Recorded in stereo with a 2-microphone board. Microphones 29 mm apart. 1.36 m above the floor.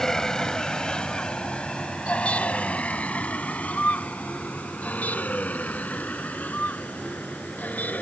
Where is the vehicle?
20° left (ahead or behind); by 8.0 s 80° left.